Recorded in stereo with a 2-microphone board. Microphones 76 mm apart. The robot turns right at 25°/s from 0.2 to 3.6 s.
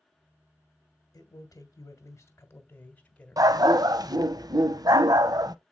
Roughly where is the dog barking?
Right.